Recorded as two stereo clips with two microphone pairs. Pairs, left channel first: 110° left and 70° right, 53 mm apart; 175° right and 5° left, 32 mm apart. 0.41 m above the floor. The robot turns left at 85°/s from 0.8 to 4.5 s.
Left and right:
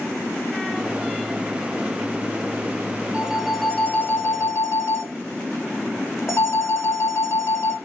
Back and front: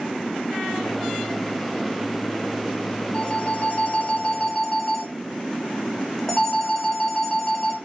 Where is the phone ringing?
130° right, 1.1 m; by 7.8 s 115° left, 1.1 m.